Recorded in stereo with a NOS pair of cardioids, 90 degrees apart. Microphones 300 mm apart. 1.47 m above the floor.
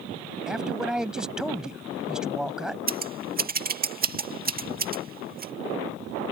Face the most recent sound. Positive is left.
turn(degrees=-30)